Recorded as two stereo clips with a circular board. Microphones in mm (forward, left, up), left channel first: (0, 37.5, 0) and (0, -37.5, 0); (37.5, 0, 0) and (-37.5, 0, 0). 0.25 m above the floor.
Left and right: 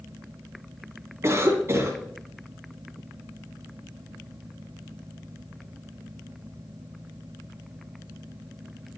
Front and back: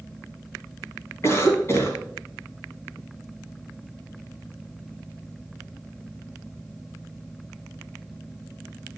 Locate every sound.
1.2 s a cough: 40° right, 2.5 m